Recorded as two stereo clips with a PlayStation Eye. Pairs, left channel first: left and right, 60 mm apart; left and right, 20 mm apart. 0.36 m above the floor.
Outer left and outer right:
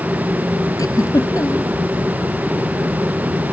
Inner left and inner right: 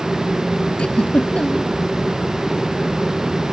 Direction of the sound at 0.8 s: 70° left (ahead or behind).